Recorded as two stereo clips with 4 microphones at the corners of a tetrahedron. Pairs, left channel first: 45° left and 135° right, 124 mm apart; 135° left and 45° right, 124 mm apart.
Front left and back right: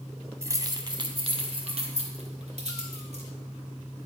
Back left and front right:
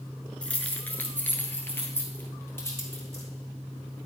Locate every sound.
0.4 s keys jangling: 160° right, 0.8 m; by 3.2 s 155° right, 2.5 m